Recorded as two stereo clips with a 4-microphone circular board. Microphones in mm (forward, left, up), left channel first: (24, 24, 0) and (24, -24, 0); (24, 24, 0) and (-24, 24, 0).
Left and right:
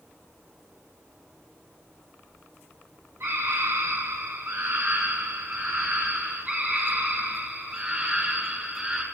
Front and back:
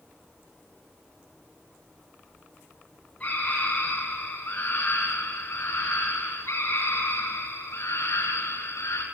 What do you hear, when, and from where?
3.2 s a scream: 60° right, 6.5 m; by 9.0 s 15° right, 7 m